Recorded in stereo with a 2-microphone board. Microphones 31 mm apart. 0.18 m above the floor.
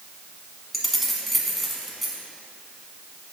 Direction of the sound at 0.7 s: Centre (ahead or behind).